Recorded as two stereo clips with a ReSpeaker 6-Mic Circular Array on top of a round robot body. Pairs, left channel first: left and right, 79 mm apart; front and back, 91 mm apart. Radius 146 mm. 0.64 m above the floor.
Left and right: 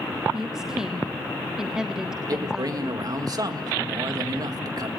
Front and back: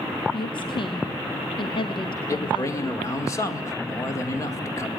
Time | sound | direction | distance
0.3 | a woman speaking | 5° right | 1.3 m
2.3 | a man speaking | 55° right | 2 m